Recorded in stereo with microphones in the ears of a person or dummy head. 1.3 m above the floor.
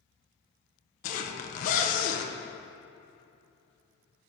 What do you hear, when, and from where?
1.0 s a zipper: 45° left (ahead or behind), 0.9 m